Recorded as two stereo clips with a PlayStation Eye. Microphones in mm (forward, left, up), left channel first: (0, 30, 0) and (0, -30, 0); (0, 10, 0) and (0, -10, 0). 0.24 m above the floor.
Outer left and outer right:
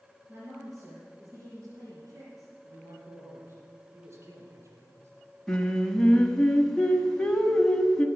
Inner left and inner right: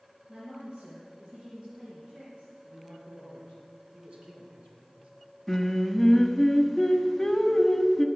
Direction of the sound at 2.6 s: 45° right (ahead or behind).